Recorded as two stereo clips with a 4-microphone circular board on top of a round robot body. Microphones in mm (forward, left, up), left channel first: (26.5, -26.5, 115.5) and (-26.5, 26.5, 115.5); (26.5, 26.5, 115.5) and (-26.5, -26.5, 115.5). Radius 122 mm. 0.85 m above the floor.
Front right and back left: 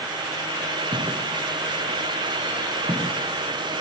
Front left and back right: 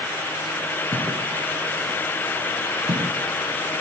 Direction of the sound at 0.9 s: 175° left.